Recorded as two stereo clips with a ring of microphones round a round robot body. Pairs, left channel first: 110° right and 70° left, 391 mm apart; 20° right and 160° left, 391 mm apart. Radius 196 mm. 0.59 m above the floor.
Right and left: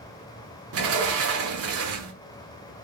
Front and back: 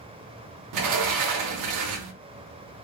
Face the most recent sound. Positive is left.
turn(degrees=120)